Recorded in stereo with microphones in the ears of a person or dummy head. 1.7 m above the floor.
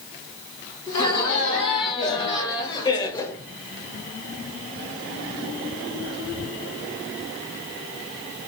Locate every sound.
0.9 s laughter: 30° left (ahead or behind), 1.9 m; by 3.4 s 20° left (ahead or behind), 0.6 m